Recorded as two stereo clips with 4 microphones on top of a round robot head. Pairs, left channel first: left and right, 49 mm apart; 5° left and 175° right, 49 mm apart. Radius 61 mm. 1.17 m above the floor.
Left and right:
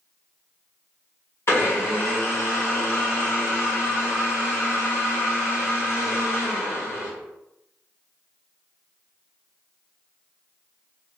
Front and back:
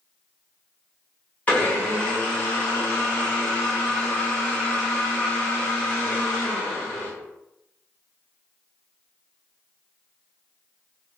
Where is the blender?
60° left, 1.5 m.